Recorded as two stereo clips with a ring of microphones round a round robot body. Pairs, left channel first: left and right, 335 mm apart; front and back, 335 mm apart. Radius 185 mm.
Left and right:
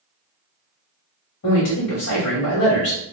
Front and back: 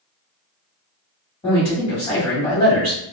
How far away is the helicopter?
No helicopter in this recording.